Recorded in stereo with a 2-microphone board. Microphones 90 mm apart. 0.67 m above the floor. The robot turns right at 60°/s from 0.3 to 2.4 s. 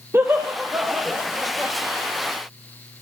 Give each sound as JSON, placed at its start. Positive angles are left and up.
{"t": 0.1, "sound": "laughter", "side_deg": -30, "distance_m": 1.0}